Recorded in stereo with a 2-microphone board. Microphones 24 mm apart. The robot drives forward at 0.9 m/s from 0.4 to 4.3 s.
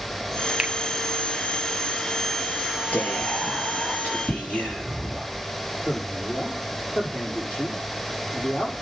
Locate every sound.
0.6 s a finger snap: 25° right (ahead or behind), 1.4 m
2.9 s whispering: 75° left (ahead or behind), 5 m; by 5.2 s 65° left (ahead or behind), 5.5 m
5.8 s a man speaking: 80° left, 7.5 m